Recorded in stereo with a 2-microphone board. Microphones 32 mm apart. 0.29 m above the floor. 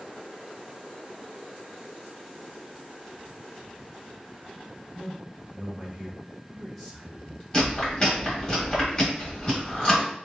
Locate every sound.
5.0 s a man speaking: 30° right (ahead or behind), 1.6 m; by 7.4 s 20° left (ahead or behind), 1.8 m
7.5 s chewing: 25° left (ahead or behind), 1.5 m